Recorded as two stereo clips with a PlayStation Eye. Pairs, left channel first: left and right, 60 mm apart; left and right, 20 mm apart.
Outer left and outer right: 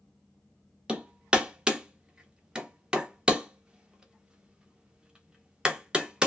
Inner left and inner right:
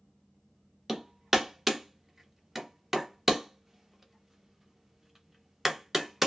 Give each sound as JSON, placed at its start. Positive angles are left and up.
{"t": 0.9, "sound": "hammering", "side_deg": -20, "distance_m": 0.8}